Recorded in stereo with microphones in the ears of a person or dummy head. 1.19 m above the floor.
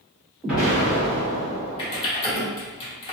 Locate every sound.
0.4 s an explosion: centre (ahead or behind), 1.2 m
1.8 s typing on a keyboard: 25° left (ahead or behind), 0.7 m